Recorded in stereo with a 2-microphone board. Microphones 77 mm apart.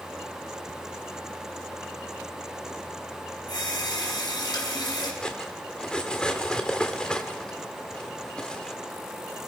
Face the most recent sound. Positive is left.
turn(degrees=10)  # may be behind; listen again after turning